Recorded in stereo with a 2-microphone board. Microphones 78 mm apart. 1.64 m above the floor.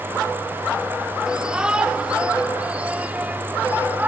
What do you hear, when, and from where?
1.3 s a shout: 10° right (ahead or behind); by 4.1 s 20° right (ahead or behind)